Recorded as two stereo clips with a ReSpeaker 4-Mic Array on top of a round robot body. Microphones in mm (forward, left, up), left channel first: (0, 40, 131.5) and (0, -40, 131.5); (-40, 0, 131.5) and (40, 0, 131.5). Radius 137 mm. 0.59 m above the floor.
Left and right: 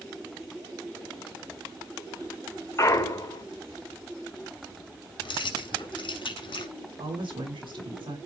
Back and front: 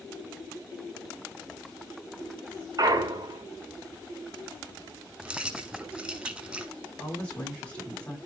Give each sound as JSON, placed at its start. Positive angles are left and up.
{"t": 2.8, "sound": "a clunk", "azimuth_deg": 40, "distance_m": 2.0}
{"t": 5.2, "sound": "keys jangling", "azimuth_deg": 75, "distance_m": 2.5}
{"t": 7.0, "sound": "a woman speaking", "azimuth_deg": -105, "distance_m": 7.5}